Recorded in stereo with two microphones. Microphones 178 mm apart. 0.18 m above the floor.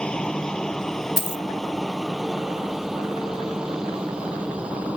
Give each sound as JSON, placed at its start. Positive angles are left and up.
{"t": 0.0, "sound": "a helicopter", "side_deg": 5}
{"t": 1.2, "sound": "a dropped coin", "side_deg": 65}